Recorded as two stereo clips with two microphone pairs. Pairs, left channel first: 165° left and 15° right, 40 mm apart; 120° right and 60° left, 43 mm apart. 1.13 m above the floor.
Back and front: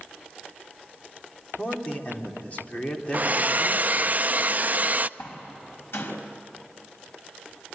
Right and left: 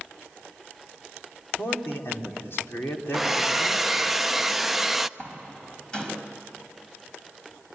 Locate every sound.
1.6 s a man speaking: 140° right, 3.5 m
3.1 s a hair dryer: 30° right, 0.5 m
5.2 s a door slam: 170° left, 5 m